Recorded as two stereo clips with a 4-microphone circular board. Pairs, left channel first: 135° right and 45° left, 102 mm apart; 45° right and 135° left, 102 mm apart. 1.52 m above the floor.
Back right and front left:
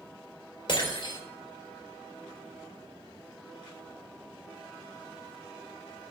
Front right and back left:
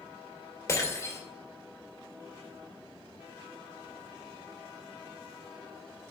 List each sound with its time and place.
0.7 s breaking glass: 105° right, 3 m